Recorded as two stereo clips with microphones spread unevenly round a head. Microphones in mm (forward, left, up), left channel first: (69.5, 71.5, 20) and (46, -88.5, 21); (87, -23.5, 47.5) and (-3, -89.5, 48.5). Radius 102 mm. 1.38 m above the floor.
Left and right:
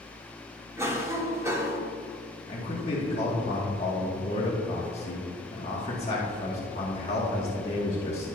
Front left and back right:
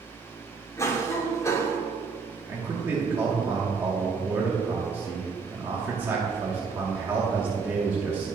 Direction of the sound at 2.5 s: 140° left.